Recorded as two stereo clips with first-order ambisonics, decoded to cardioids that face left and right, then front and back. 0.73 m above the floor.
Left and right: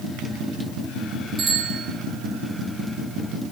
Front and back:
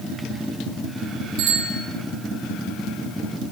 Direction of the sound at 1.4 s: 150° right.